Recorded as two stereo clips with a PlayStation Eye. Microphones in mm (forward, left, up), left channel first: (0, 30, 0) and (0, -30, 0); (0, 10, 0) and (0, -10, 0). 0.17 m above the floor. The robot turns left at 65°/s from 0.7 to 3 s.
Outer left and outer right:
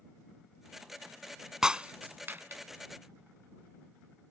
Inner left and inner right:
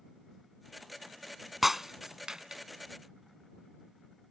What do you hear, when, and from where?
1.6 s breaking glass: 10° right (ahead or behind); by 2.6 s 45° right (ahead or behind)